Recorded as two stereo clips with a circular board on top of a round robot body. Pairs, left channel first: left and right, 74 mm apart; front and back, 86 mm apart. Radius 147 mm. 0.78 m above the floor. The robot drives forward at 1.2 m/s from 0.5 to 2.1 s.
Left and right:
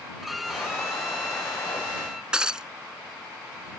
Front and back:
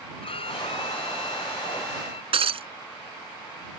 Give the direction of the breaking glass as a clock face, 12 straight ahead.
6 o'clock.